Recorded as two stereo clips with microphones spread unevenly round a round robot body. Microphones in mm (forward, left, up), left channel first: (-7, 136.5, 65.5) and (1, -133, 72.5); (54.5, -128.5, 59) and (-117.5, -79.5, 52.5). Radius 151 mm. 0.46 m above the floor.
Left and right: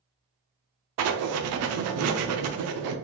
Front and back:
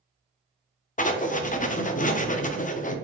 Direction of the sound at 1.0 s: 65° right.